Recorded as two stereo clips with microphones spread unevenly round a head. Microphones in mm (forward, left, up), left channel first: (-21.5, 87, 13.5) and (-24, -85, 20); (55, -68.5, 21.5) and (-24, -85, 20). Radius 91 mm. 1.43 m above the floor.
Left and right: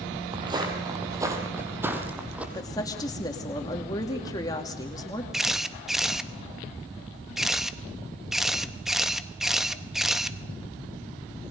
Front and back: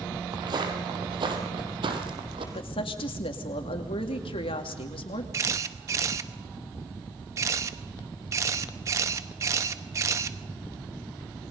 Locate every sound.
0.3 s footsteps: 150° right, 3 m; by 2.4 s 170° right, 3.5 m
2.5 s a woman speaking: 20° left, 2.5 m
5.3 s a camera shutter: 175° right, 0.8 m